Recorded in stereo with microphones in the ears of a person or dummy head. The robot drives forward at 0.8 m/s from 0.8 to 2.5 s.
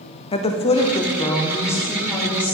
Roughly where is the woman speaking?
Left.